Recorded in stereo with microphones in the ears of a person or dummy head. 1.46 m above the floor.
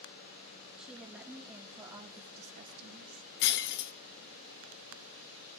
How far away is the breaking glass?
About 1.1 m.